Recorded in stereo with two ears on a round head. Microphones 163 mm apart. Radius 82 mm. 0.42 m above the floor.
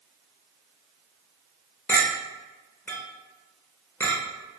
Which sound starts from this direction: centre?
A clink, at 1.9 s.